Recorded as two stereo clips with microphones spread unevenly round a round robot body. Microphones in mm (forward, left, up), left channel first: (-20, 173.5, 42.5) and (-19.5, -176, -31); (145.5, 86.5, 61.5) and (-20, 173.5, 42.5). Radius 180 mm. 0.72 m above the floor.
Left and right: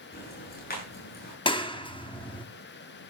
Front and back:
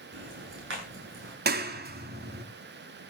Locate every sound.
0.1 s ticking: 155° left, 9.5 m
1.4 s a clap: 170° left, 1.6 m